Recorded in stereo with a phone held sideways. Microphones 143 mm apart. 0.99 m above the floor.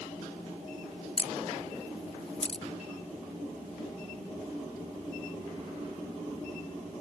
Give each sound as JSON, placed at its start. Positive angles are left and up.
{"t": 1.2, "sound": "a camera shutter", "side_deg": 45}